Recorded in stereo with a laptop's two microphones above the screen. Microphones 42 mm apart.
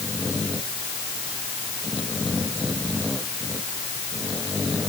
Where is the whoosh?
No whoosh in this recording.